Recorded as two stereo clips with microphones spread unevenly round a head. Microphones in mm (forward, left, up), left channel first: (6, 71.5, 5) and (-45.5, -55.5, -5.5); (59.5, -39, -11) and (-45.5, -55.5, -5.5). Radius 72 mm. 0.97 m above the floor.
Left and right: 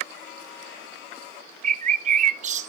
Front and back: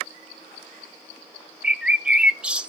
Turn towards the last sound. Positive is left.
turn(degrees=-90)